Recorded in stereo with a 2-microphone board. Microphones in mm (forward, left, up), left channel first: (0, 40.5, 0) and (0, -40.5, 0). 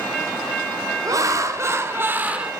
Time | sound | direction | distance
1.1 | laughter | 45° right (ahead or behind) | 1.7 m